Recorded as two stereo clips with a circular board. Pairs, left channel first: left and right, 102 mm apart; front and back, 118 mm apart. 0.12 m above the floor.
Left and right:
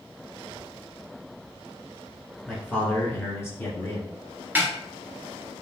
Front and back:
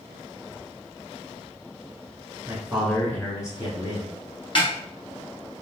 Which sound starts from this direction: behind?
A man speaking, at 2.5 s.